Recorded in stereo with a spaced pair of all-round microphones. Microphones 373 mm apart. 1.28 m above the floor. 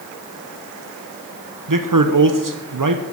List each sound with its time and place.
1.7 s a man speaking: 65° right (ahead or behind), 0.8 m